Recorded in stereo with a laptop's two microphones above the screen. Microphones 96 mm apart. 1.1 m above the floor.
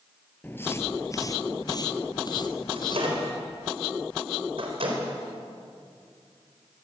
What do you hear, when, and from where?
0.4 s footsteps: 15° left (ahead or behind), 1.1 m; by 3.3 s 45° left (ahead or behind), 2.5 m
2.7 s a microwave: 65° right (ahead or behind), 4.5 m